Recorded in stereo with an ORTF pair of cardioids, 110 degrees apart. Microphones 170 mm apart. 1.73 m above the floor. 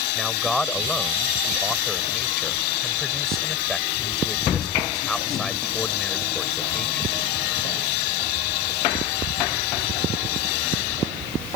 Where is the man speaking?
Straight ahead.